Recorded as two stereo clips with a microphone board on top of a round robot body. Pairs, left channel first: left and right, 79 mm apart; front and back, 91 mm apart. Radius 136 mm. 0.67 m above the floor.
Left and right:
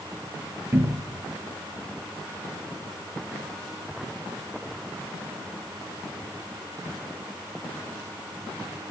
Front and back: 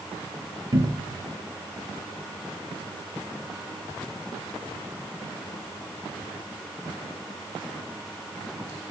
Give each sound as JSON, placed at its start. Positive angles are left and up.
{"t": 0.7, "sound": "a cupboard door", "azimuth_deg": -140, "distance_m": 1.5}